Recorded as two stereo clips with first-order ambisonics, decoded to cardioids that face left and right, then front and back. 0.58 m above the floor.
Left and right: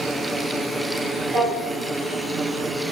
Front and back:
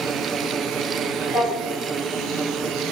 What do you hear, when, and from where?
1.3 s a drawer: 80° right, 1.8 m